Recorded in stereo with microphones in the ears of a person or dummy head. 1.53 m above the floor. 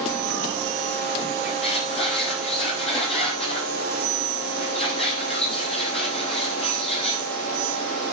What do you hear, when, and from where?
1.4 s a squeak: 35° left (ahead or behind), 7.5 m